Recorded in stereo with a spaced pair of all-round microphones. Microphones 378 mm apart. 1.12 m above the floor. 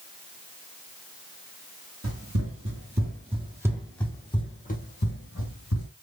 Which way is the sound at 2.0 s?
45° right (ahead or behind).